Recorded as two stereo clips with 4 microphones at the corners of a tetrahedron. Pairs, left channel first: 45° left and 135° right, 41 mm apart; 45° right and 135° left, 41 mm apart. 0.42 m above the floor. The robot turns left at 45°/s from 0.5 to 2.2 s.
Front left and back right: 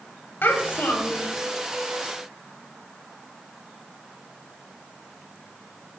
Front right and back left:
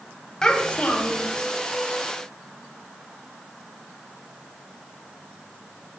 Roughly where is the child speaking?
Ahead left.